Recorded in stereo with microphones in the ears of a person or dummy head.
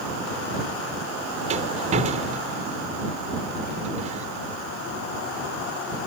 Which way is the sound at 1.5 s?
45° right (ahead or behind).